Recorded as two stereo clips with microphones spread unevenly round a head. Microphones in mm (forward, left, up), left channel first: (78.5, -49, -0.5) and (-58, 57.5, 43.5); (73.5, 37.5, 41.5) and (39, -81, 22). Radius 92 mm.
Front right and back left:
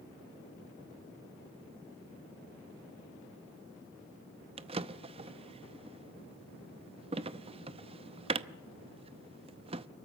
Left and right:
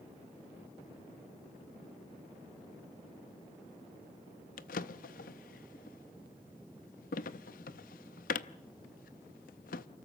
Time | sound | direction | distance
4.6 | a drawer | 90° left | 0.6 m